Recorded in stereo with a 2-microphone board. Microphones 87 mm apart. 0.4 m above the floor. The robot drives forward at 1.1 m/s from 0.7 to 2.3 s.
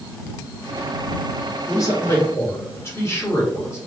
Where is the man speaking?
40° left (ahead or behind), 1.4 m; by 3.8 s 30° left (ahead or behind), 1.7 m.